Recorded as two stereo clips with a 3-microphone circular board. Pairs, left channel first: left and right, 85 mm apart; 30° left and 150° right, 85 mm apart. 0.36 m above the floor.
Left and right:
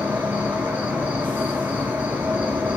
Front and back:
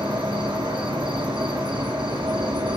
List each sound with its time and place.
0.0 s an insect: 160° right, 1.3 m